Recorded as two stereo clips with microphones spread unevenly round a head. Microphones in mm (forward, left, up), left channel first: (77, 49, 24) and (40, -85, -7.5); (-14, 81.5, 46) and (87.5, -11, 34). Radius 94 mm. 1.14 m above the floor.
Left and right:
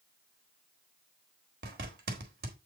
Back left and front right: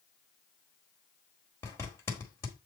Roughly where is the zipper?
Behind right.